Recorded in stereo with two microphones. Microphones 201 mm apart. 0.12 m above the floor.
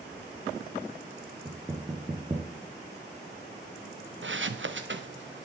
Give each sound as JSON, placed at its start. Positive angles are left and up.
{"t": 1.4, "sound": "knocking", "side_deg": -25, "distance_m": 1.1}
{"t": 4.2, "sound": "footsteps", "side_deg": -80, "distance_m": 0.7}